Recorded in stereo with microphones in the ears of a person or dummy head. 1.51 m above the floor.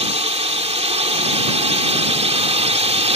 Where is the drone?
30° right (ahead or behind).